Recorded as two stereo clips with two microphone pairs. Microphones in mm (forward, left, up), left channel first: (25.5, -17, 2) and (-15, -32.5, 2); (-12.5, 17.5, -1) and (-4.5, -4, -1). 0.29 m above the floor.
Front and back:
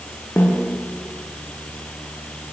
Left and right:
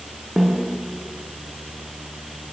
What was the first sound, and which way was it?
A snare drum, 5° right.